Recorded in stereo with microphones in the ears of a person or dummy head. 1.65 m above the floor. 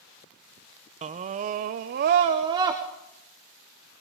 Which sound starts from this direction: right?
A scream, at 1.0 s.